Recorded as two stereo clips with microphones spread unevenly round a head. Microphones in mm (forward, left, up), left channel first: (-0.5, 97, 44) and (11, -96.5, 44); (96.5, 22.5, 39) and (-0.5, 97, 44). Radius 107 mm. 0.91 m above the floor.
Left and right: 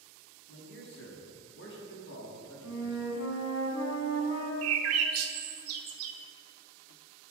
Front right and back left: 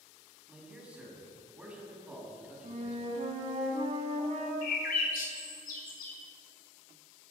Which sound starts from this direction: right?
A bird, at 4.6 s.